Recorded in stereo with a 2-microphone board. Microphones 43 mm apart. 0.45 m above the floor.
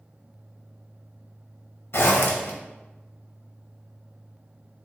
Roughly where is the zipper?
Left.